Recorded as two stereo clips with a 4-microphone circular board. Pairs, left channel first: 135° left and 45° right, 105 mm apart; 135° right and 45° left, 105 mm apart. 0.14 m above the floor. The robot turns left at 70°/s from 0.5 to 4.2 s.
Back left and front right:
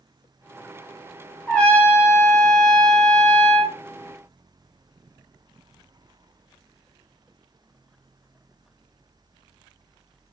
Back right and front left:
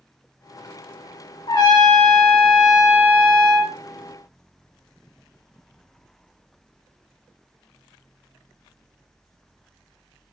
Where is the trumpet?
145° right, 1.0 m; by 3.8 s 55° left, 1.0 m.